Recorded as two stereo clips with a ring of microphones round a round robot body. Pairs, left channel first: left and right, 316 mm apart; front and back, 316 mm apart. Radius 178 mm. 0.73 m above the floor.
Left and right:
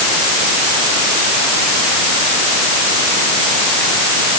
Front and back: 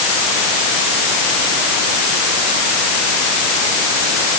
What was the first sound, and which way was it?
Only background noise.